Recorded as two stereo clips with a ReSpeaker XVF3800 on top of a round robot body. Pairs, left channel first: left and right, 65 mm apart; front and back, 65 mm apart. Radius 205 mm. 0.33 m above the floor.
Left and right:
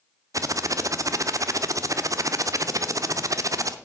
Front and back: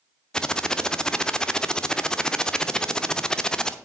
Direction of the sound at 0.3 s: 80° right.